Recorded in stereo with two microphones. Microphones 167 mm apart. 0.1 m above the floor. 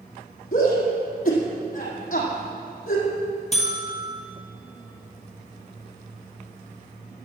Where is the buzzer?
45° left (ahead or behind), 2.5 m.